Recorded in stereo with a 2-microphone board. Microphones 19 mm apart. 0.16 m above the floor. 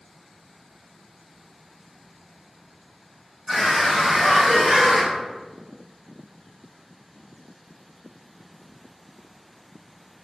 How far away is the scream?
About 1.2 m.